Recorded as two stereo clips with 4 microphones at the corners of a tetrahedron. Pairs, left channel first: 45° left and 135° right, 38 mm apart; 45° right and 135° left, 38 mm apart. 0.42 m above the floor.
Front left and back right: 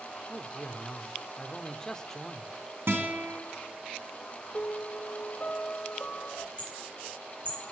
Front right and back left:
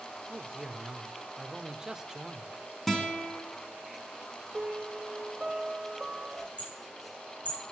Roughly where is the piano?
Ahead left.